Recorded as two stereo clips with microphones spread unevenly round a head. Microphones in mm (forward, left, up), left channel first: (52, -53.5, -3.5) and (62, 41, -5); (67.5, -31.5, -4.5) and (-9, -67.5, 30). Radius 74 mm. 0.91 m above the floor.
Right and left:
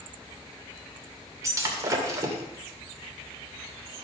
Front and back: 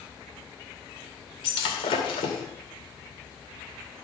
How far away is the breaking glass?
About 2 m.